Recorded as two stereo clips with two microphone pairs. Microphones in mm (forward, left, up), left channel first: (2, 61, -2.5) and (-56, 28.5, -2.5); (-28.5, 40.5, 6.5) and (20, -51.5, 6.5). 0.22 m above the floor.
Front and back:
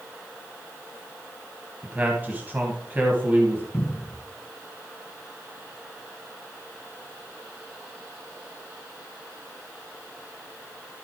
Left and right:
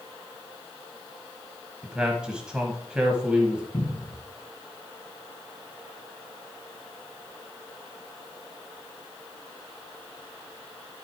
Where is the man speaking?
135° right, 1.4 m.